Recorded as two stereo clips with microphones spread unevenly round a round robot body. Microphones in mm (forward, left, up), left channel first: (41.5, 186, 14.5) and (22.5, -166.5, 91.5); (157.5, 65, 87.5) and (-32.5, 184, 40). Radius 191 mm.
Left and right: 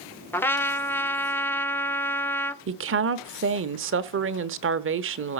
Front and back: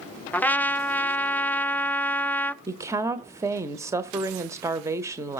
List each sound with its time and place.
0.3 s a trumpet: 70° left, 0.9 m
2.7 s a woman speaking: 150° right, 1.1 m